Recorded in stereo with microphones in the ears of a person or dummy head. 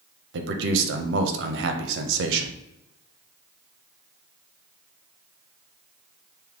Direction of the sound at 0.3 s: 60° right (ahead or behind).